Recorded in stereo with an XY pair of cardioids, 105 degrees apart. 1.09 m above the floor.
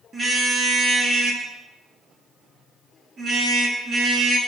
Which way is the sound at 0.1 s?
30° right.